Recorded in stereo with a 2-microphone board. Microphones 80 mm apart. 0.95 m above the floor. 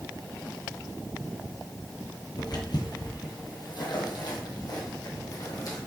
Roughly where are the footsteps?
Left.